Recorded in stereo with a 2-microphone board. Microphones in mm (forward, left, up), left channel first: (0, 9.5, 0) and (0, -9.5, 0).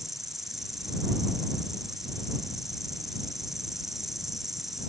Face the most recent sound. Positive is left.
turn(degrees=-15)  # may be behind; listen again after turning